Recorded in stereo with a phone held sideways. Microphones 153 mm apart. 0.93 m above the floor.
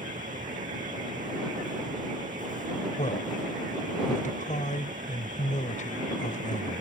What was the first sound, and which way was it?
A fan, 60° right (ahead or behind).